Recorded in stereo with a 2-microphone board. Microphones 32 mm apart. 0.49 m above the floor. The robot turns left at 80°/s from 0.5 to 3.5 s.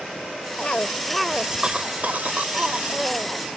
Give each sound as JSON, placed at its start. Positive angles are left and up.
{"t": 0.6, "sound": "a cough", "azimuth_deg": 45}